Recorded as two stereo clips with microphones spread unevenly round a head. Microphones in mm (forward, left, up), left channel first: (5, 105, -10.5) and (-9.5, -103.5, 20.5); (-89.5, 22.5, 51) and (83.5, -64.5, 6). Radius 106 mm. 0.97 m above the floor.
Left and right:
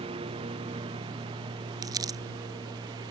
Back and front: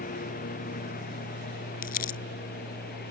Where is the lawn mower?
160° right; by 3.1 s 165° right.